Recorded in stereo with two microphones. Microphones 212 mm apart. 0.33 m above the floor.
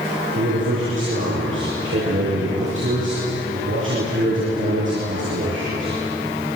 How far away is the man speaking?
About 9 m.